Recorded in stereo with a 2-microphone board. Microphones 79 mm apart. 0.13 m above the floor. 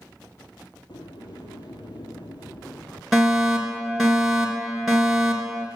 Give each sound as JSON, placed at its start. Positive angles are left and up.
{"t": 0.9, "sound": "a sliding door", "side_deg": 70, "distance_m": 1.9}
{"t": 3.1, "sound": "a fire alarm", "side_deg": -5, "distance_m": 3.0}